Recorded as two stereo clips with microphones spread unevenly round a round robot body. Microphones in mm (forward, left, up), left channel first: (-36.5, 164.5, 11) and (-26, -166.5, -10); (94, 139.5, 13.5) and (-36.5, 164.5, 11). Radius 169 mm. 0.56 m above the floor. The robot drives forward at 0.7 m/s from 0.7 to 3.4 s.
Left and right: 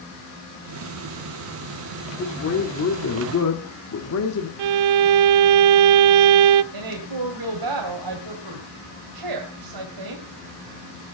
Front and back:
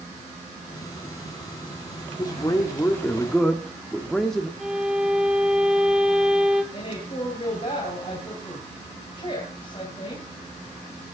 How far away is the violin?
About 0.6 m.